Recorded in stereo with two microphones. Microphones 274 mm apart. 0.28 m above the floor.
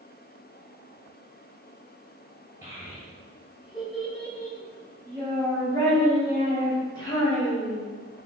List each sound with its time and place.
2.6 s a child speaking: 10° right (ahead or behind), 1.4 m; by 7.8 s 15° left (ahead or behind), 3 m